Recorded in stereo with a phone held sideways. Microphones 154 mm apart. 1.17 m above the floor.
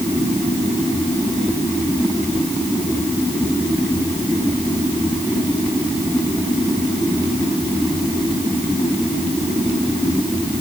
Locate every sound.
Only background noise.